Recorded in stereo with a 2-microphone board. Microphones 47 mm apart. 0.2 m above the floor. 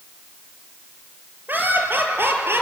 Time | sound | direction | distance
1.5 | laughter | 45° right (ahead or behind) | 4 m